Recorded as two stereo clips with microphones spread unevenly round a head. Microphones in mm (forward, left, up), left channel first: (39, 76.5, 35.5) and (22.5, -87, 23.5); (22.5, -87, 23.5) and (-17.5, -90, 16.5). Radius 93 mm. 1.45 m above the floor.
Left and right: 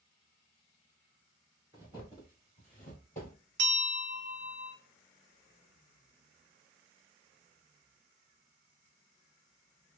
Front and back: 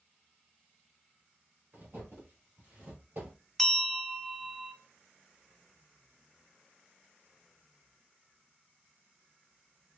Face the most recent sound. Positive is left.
turn(degrees=-80)